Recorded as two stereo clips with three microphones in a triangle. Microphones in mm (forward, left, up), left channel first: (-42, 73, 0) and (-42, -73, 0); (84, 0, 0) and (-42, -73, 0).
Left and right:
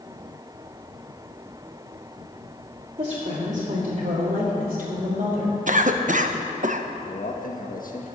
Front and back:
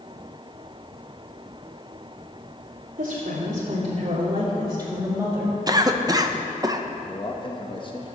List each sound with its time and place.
3.0 s a woman speaking: 140° right, 2.5 m; by 5.6 s 65° right, 3.5 m
5.7 s a cough: 90° right, 0.9 m
7.1 s a man speaking: 85° left, 1.3 m